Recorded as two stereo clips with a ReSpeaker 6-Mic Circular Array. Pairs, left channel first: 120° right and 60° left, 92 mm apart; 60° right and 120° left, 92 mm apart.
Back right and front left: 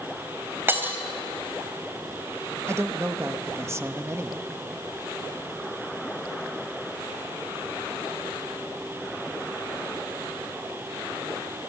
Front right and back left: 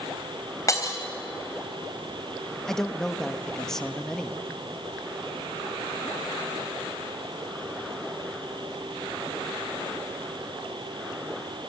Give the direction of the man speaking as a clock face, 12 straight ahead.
11 o'clock.